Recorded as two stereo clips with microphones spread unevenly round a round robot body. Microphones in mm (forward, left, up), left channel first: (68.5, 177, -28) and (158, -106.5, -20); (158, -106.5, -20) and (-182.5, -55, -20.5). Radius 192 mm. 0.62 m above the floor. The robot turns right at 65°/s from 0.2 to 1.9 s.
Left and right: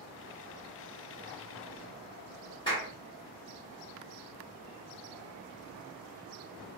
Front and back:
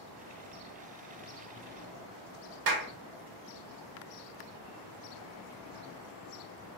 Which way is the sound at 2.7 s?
Straight behind.